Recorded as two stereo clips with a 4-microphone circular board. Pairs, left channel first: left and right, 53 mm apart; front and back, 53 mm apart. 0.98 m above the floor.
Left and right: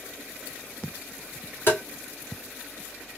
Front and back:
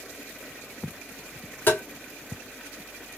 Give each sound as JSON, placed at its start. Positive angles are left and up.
{"t": 1.7, "sound": "tapping", "azimuth_deg": 45, "distance_m": 2.0}